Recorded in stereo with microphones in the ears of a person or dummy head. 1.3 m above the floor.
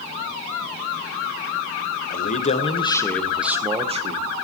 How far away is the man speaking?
About 1.0 m.